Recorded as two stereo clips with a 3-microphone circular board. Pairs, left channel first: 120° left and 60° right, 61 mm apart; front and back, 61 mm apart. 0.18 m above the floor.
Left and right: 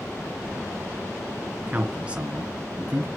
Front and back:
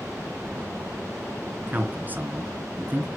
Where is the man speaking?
125° right, 2.5 m.